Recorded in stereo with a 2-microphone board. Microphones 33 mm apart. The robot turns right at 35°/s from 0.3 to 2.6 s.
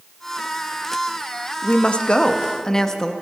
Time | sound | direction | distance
1.6 | a woman speaking | 120° left | 0.6 m